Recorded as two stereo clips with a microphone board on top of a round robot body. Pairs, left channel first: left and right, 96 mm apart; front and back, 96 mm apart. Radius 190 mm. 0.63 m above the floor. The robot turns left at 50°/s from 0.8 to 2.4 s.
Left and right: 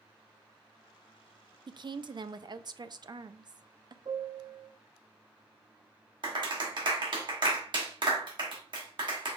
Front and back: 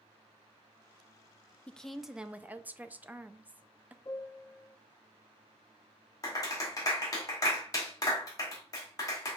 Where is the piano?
55° right, 0.5 m.